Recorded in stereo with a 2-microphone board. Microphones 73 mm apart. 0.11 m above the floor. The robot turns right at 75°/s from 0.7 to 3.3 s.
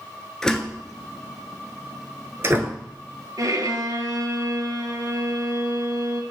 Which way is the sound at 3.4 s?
50° right (ahead or behind).